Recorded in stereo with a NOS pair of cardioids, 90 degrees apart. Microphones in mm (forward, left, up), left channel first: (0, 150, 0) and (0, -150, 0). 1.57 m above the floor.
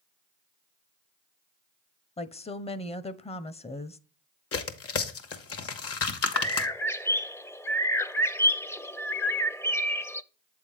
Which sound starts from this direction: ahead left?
Tearing paper, at 4.5 s.